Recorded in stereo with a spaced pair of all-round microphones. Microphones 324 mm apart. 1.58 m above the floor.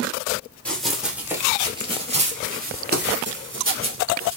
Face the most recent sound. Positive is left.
turn(degrees=-45)  # may be behind; listen again after turning